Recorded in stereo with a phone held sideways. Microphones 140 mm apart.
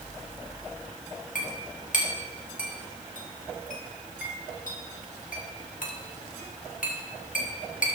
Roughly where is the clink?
Left.